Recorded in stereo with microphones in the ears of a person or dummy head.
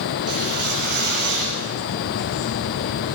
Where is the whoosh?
50° right (ahead or behind), 7.5 m.